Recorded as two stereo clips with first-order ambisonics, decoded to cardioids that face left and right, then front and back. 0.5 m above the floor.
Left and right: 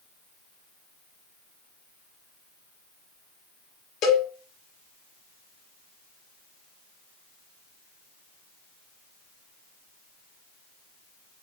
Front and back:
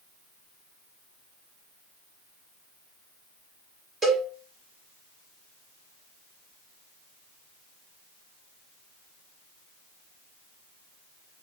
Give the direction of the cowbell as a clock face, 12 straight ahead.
8 o'clock.